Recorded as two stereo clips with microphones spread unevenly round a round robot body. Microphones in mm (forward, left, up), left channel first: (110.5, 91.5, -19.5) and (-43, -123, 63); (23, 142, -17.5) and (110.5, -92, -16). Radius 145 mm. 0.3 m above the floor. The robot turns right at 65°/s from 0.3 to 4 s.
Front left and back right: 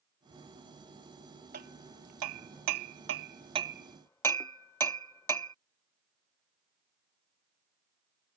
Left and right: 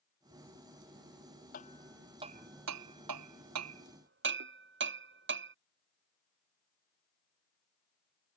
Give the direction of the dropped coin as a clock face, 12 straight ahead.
No dropped coin in this recording.